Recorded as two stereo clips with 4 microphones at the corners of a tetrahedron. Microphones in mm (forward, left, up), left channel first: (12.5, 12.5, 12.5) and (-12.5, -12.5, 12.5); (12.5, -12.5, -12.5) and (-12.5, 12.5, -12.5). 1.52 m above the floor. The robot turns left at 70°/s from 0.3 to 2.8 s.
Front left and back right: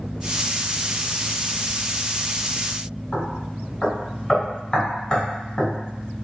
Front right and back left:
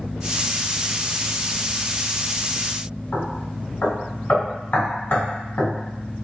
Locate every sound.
3.1 s knocking: 15° right, 1.3 m